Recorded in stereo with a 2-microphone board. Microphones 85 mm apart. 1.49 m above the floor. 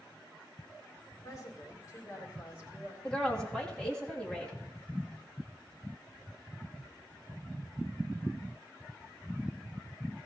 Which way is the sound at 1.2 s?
40° left (ahead or behind).